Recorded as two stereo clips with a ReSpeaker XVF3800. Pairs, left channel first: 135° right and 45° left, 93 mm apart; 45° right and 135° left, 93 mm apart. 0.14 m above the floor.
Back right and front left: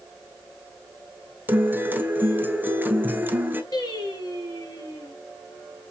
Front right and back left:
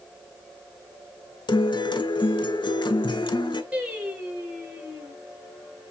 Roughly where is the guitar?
Ahead.